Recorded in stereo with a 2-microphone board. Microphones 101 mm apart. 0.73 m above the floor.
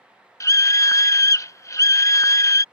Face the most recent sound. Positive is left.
turn(degrees=30)  # may be behind; listen again after turning